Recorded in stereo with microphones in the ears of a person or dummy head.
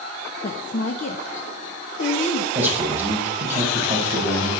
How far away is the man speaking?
About 5 m.